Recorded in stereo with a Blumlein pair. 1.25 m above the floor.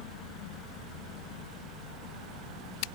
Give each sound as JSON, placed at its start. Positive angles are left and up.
{"t": 0.0, "sound": "a fan", "azimuth_deg": -30, "distance_m": 0.8}